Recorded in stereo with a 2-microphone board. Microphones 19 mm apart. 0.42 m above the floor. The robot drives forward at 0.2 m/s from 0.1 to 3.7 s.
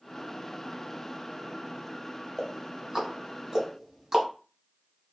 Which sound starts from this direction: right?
Ticking, at 2.4 s.